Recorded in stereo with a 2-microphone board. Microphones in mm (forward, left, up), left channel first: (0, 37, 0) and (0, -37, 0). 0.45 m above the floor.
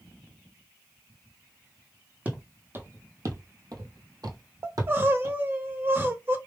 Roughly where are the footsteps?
Right.